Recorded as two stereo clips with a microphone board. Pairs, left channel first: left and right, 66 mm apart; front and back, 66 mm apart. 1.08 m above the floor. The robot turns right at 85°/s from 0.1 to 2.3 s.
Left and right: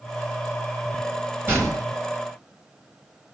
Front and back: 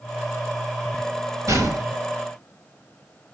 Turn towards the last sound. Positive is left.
turn(degrees=-80)